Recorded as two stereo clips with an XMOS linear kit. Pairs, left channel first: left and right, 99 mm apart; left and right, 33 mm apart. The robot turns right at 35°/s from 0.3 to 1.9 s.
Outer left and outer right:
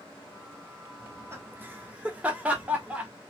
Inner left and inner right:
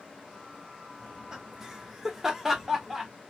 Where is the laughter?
30° right (ahead or behind), 1.3 m; by 3.1 s 15° right (ahead or behind), 1.3 m.